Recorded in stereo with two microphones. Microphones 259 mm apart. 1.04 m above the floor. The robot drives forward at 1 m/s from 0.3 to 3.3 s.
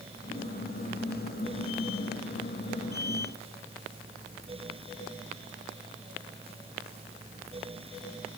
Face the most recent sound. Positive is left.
No sound to turn to.